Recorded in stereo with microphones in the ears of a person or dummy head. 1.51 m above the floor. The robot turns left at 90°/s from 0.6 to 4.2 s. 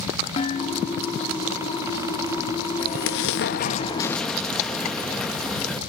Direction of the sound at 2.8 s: 135° left.